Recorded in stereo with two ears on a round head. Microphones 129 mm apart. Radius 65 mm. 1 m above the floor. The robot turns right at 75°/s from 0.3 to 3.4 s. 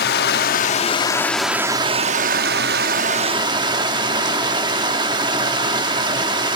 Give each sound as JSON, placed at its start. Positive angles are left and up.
{"t": 0.0, "sound": "running water", "azimuth_deg": 95, "distance_m": 0.9}